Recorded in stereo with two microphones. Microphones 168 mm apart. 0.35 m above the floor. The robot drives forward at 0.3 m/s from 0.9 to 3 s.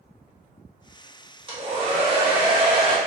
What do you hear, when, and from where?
1.5 s a hair dryer: 30° right (ahead or behind), 0.9 m